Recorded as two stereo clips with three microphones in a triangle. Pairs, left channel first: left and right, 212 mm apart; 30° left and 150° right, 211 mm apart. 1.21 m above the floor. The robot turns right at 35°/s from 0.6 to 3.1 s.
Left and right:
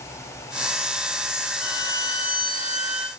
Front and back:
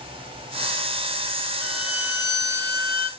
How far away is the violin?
About 1.0 m.